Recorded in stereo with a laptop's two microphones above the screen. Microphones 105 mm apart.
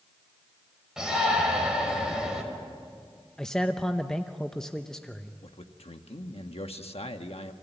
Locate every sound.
1.0 s a shout: 5° right (ahead or behind), 5.5 m
3.4 s a man speaking: 5° left (ahead or behind), 0.8 m
5.4 s a man speaking: 75° left (ahead or behind), 1.1 m